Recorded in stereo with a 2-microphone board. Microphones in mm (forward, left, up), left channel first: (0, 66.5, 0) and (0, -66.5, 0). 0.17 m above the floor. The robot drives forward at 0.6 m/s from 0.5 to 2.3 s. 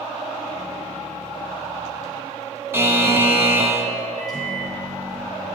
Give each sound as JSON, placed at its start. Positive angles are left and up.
{"t": 2.7, "sound": "a buzzer", "side_deg": -20, "distance_m": 0.5}
{"t": 4.2, "sound": "a microwave", "side_deg": 30, "distance_m": 1.8}